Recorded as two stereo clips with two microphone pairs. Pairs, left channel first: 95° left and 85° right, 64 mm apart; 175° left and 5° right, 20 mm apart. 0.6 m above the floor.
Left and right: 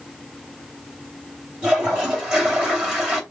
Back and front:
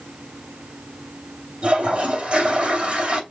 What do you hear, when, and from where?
1.6 s a toilet flushing: 10° right, 2.5 m